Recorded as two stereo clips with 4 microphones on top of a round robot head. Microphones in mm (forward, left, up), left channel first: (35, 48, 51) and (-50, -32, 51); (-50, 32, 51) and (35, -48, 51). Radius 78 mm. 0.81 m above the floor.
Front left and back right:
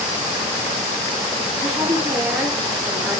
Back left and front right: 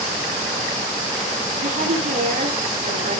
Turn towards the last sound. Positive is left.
turn(degrees=-65)